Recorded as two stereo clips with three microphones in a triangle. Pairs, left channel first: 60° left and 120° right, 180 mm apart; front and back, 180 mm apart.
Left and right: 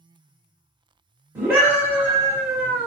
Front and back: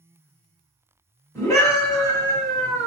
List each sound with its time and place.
1.4 s a scream: 55° right, 1.2 m